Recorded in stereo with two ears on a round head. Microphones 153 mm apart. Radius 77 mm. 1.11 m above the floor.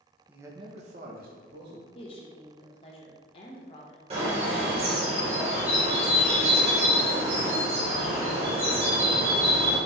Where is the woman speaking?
35° left (ahead or behind), 1.0 m.